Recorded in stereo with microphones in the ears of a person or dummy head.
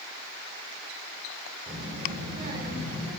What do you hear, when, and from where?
1.7 s a child speaking: 30° right (ahead or behind), 3 m